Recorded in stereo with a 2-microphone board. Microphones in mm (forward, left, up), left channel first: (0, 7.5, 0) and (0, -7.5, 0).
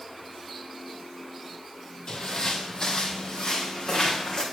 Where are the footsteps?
50° left (ahead or behind), 2 m.